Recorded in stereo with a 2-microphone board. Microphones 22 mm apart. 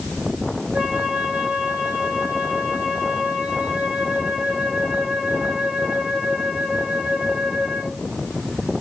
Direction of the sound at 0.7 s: 85° right.